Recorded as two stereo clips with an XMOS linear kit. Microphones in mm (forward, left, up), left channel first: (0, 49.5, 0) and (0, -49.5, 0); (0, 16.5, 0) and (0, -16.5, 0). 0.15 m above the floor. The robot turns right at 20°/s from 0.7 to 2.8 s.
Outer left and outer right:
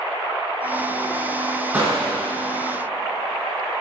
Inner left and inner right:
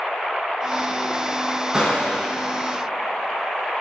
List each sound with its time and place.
1.7 s a gunshot: 15° right (ahead or behind), 2.5 m; by 2.3 s 5° right (ahead or behind), 2.5 m